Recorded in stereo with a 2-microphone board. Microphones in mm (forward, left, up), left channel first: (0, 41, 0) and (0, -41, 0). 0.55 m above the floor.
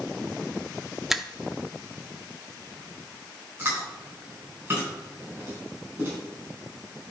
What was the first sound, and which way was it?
A finger snap, 5° right (ahead or behind).